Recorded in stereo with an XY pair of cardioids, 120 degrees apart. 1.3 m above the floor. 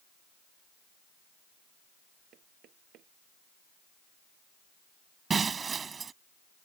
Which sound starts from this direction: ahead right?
Breaking glass, at 5.3 s.